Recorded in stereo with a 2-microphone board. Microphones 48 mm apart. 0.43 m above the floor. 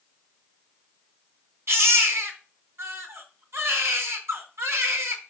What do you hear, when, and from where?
1.7 s a baby crying: 60° right (ahead or behind), 3 m